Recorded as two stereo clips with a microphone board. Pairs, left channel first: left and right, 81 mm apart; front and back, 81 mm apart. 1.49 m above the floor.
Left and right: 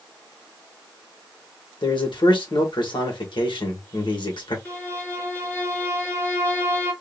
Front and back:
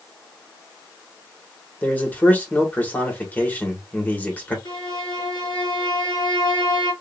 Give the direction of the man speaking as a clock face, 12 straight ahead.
10 o'clock.